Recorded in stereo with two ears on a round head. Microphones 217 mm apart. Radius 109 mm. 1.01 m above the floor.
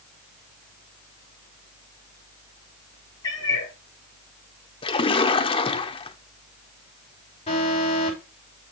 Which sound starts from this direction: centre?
A cat meowing, at 3.2 s.